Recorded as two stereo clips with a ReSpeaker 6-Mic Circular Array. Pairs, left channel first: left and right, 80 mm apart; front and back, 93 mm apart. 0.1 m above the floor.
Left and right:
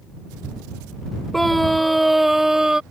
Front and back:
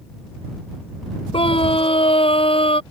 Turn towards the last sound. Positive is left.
turn(degrees=-10)